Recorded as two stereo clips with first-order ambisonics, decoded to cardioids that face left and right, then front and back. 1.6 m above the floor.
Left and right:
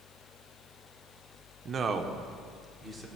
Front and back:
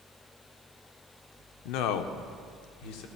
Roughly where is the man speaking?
Ahead right.